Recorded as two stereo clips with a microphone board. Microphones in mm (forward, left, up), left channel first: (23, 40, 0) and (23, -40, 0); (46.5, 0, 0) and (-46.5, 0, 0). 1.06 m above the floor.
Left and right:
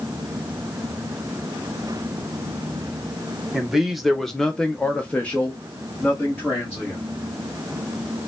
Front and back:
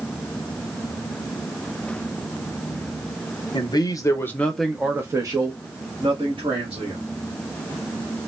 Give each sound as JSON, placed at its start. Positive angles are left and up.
{"t": 3.5, "sound": "a man speaking", "azimuth_deg": -5, "distance_m": 0.9}